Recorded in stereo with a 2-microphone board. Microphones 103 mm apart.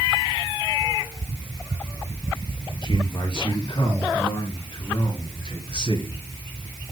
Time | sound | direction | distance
2.8 | a man speaking | 45° left (ahead or behind) | 5 m